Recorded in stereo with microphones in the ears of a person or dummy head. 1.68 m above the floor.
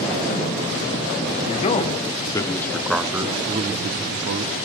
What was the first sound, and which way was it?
A man speaking, 35° left (ahead or behind).